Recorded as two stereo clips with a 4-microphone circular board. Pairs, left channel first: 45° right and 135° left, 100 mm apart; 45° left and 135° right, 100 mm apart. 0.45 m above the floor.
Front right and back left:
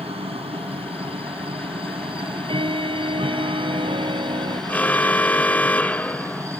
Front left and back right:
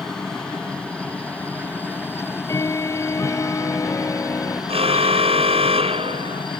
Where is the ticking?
105° left.